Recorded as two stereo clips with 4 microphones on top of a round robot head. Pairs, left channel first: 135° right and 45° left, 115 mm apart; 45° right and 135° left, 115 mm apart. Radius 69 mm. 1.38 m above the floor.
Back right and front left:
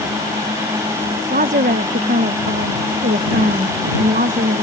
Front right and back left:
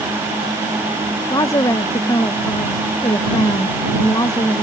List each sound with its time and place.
1.3 s a woman speaking: 20° left